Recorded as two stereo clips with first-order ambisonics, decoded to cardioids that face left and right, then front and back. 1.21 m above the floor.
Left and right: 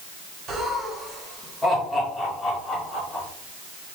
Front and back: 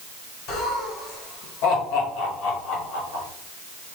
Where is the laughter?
30° right, 1.3 m; by 3.2 s 10° left, 2.5 m.